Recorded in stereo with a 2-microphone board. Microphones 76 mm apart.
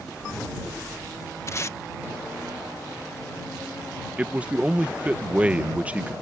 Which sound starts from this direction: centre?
A man speaking, at 4.2 s.